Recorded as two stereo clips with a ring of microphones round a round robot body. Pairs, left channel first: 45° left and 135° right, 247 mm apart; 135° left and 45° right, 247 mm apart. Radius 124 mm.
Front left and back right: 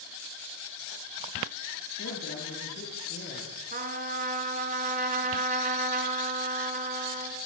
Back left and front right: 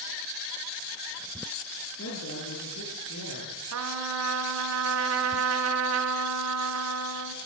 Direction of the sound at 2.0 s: 90° left.